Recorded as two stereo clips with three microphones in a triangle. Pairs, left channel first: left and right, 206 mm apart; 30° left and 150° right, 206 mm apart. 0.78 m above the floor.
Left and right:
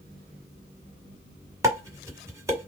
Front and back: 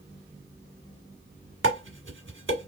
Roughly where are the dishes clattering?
Behind.